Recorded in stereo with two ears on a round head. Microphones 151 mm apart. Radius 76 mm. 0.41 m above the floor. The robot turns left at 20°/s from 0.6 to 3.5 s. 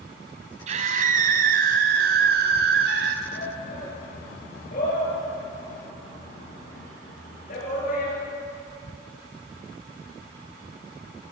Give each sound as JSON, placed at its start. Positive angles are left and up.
{"t": 0.7, "sound": "a scream", "azimuth_deg": -45, "distance_m": 2.5}
{"t": 3.3, "sound": "a shout", "side_deg": 55, "distance_m": 9.0}